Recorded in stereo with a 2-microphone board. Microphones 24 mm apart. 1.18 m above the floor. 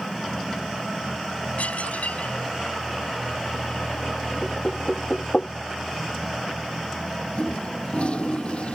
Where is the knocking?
35° left (ahead or behind).